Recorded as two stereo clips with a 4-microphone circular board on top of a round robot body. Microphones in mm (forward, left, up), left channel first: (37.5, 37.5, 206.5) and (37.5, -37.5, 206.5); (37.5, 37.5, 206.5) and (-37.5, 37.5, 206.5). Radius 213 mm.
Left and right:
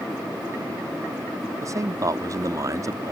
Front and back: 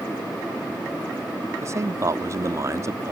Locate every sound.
1.6 s a man speaking: 135° right